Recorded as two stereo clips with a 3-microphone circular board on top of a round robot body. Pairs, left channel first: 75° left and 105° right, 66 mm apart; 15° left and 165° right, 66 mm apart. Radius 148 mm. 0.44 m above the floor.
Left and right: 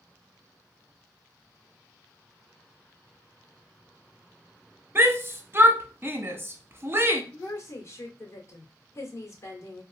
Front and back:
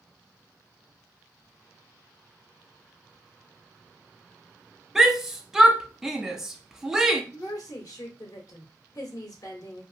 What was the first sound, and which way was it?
A shout, 85° right.